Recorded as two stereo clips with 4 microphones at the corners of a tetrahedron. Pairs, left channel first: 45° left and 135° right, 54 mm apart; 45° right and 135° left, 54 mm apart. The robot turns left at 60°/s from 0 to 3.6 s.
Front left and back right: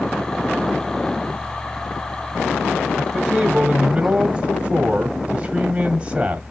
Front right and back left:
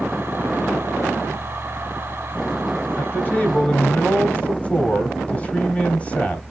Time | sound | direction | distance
3.0 | a man speaking | 50° right | 1.2 m